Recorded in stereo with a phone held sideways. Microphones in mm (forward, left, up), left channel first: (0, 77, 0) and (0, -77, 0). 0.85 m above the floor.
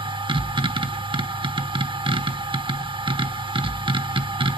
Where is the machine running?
30° right (ahead or behind), 1.0 m.